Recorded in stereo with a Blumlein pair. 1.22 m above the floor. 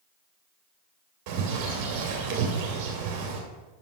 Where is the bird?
40° right, 2.5 m.